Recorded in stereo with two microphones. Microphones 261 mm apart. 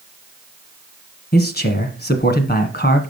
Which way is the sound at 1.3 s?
35° left (ahead or behind).